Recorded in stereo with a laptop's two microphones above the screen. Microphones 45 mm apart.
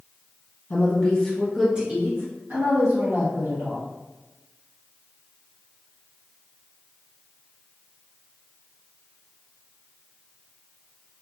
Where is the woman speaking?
40° left (ahead or behind), 1.1 m; by 3.9 s 70° right (ahead or behind), 2.5 m.